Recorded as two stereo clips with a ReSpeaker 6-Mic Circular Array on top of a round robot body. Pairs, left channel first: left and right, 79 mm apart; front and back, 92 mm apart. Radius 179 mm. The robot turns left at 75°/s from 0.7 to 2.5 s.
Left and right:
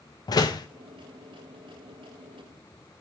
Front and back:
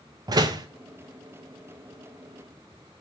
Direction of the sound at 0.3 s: 130° left.